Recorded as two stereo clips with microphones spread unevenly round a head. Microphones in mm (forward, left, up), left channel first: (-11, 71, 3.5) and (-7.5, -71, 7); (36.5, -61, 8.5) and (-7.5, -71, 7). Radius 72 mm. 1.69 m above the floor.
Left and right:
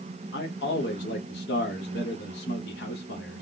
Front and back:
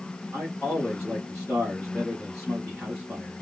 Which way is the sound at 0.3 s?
100° left.